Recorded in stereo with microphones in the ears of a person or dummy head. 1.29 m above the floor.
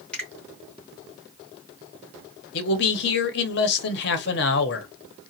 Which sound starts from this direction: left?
A man speaking, at 2.5 s.